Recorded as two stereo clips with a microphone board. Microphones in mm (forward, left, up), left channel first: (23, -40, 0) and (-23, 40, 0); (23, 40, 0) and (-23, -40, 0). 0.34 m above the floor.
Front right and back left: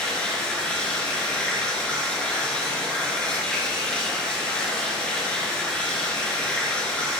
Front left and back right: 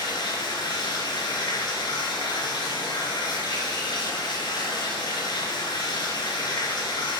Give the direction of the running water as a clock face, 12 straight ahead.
11 o'clock.